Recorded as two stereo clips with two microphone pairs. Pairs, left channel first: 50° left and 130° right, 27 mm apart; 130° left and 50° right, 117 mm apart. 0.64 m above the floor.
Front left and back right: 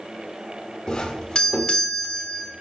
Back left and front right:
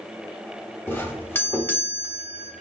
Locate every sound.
0.9 s a doorbell: 75° left, 1.1 m